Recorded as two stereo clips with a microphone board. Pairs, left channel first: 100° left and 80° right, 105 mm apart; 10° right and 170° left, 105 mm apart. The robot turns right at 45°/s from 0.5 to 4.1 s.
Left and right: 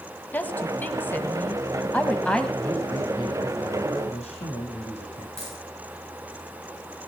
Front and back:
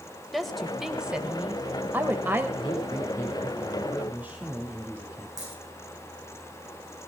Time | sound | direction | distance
0.3 | a woman speaking | 75° left | 1.5 m
2.6 | a man speaking | 25° left | 8.5 m
5.4 | a dropped coin | 115° left | 9 m